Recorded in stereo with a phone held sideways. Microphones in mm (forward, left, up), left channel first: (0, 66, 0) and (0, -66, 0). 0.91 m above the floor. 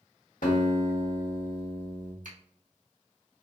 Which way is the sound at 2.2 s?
70° right (ahead or behind).